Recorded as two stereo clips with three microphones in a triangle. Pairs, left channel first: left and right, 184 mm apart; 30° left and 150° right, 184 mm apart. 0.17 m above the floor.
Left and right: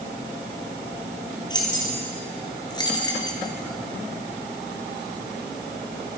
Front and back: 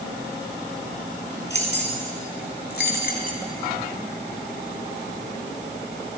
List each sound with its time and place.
1.5 s keys jangling: 25° left, 2.5 m; by 3.4 s 30° left, 1.2 m